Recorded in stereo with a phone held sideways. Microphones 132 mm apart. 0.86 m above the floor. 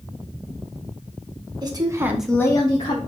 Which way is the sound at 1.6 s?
30° right (ahead or behind).